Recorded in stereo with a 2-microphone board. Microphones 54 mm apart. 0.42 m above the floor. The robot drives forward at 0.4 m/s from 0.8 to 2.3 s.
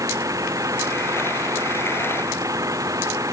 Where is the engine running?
70° right (ahead or behind).